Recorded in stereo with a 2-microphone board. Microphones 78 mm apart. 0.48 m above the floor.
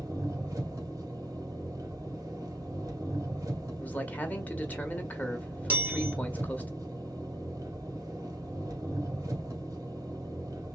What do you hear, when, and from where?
0.0 s an engine running: 45° right (ahead or behind), 2 m
3.8 s a man speaking: 20° left (ahead or behind), 1.0 m
5.7 s a chime: 20° right (ahead or behind), 1.6 m